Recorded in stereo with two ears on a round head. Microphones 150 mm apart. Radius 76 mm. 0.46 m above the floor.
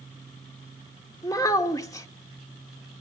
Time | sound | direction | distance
1.2 | a child speaking | 20° left (ahead or behind) | 0.8 m